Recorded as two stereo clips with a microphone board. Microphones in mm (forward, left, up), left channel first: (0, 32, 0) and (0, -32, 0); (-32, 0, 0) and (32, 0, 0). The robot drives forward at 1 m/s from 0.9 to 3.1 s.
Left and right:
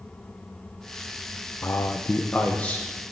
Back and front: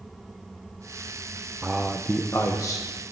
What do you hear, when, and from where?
1.6 s a man speaking: 65° left, 0.7 m; by 2.9 s 160° left, 1.2 m